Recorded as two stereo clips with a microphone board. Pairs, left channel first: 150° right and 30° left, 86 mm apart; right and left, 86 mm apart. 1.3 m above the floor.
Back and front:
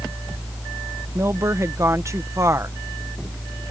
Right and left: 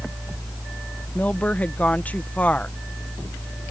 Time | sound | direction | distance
1.1 | a woman speaking | 20° right | ?